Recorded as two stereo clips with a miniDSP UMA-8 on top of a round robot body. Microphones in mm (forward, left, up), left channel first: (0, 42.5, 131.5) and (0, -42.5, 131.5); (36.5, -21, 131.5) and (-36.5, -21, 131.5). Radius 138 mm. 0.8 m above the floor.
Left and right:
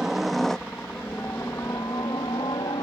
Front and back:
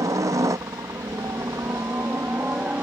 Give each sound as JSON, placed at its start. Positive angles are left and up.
{"t": 0.0, "sound": "a helicopter", "azimuth_deg": -175}